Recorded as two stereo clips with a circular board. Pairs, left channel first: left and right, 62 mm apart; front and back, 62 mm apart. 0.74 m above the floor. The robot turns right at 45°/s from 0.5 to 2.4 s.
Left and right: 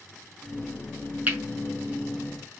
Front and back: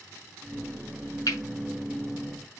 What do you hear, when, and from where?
1.3 s cutlery clinking: 25° right, 5.5 m; by 1.4 s 20° right, 5.5 m